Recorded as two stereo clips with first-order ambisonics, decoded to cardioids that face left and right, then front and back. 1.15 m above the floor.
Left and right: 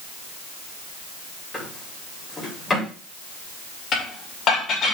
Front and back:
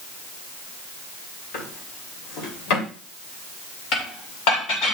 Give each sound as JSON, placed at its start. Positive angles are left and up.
{"t": 1.5, "sound": "a drawer", "azimuth_deg": 10, "distance_m": 3.0}
{"t": 3.9, "sound": "dishes clattering", "azimuth_deg": 30, "distance_m": 2.5}